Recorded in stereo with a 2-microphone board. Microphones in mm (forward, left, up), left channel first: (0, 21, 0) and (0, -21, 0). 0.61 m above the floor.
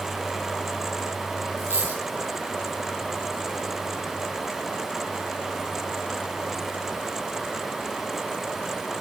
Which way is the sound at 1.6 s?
70° right (ahead or behind).